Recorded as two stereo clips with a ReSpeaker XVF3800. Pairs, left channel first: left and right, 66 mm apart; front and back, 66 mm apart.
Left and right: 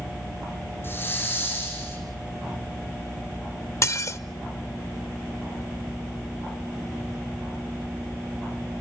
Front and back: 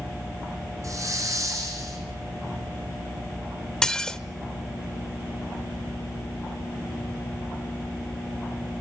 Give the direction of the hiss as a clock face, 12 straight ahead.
7 o'clock.